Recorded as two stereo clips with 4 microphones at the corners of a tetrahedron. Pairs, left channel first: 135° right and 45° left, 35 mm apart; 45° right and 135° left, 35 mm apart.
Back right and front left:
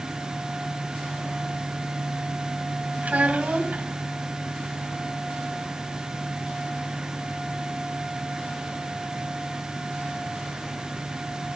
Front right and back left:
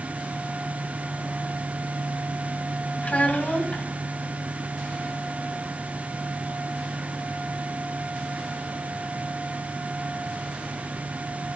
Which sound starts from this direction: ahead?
A child speaking, at 3.0 s.